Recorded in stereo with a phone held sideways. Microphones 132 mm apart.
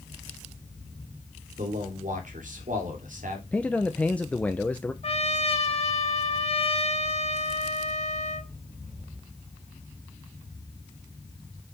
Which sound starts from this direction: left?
A trumpet, at 5.0 s.